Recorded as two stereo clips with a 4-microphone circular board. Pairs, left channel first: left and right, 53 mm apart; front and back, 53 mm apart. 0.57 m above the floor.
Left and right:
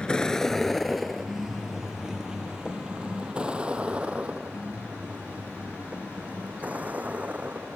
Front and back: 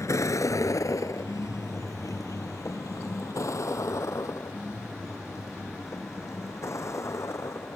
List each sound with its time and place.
0.0 s a vehicle: 15° left; by 7.8 s 30° right